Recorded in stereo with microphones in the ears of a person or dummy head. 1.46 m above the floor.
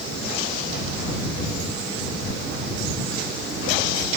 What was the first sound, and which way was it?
Only background noise.